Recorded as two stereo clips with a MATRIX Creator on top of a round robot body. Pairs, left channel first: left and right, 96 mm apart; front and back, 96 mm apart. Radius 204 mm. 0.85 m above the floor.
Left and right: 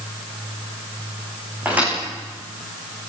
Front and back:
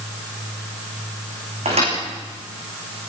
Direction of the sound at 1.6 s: 165° right.